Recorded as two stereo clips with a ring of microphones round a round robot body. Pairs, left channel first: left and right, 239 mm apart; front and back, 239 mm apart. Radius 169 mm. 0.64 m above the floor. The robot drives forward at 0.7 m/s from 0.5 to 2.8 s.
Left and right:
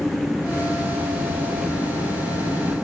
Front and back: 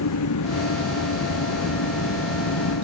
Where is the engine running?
Straight ahead.